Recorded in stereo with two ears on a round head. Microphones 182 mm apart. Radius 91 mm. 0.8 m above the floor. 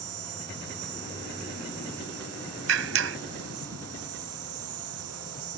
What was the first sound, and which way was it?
An insect, 85° right.